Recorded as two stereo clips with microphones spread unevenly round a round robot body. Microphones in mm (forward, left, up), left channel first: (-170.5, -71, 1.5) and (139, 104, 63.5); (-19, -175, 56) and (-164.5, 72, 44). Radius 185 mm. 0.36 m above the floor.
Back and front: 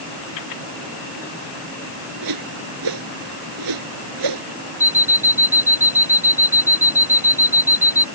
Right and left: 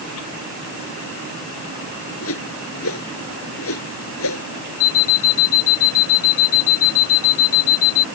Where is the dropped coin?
I don't hear a dropped coin.